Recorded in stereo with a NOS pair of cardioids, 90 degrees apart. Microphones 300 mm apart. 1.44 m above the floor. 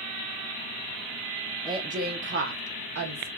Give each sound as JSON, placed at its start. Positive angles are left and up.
{"t": 1.6, "sound": "a woman speaking", "azimuth_deg": -10, "distance_m": 0.6}